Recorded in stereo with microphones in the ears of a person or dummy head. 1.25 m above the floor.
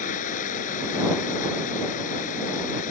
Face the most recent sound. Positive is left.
turn(degrees=45)  # may be behind; listen again after turning